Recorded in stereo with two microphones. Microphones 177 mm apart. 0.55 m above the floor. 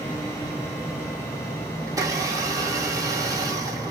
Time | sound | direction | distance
1.9 | a blender | 20° right (ahead or behind) | 0.9 m